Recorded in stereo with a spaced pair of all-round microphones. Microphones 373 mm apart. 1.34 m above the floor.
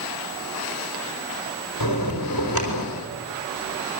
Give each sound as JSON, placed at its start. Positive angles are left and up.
{"t": 1.8, "sound": "a bell", "side_deg": 65, "distance_m": 5.5}